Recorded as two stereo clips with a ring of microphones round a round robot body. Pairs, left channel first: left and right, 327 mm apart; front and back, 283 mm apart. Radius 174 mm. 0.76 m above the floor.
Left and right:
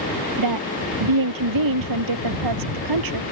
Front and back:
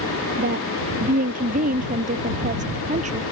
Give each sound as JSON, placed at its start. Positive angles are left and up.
{"t": 0.4, "sound": "a woman speaking", "azimuth_deg": -115}